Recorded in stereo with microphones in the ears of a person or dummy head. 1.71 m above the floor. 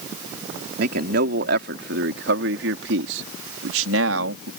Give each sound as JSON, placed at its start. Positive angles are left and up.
{"t": 0.8, "sound": "a man speaking", "side_deg": -60}